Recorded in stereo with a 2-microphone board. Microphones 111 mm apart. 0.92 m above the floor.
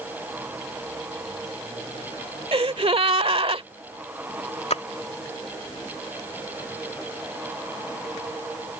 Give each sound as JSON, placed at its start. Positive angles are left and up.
{"t": 2.5, "sound": "a gasp", "side_deg": -60}
{"t": 4.7, "sound": "a splash", "side_deg": 75}